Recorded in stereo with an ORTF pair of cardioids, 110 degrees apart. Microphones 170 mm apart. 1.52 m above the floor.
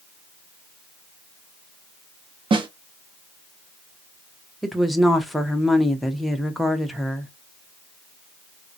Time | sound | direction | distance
2.5 | a snare drum | 30° right | 0.9 m
4.6 | a woman speaking | straight ahead | 0.8 m